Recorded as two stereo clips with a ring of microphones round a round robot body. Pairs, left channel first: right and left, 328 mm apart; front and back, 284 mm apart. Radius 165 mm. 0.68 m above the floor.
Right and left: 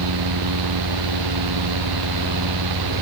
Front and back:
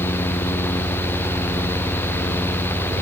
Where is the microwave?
No microwave in this recording.